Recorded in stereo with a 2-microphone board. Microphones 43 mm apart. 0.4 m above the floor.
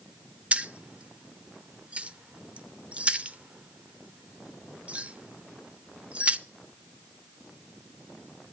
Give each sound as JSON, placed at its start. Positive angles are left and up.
{"t": 0.5, "sound": "keys jangling", "side_deg": -30, "distance_m": 0.7}